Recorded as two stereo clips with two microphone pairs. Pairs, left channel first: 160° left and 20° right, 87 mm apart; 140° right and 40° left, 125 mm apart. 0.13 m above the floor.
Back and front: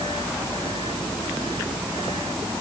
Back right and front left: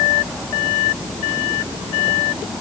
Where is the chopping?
I don't hear chopping.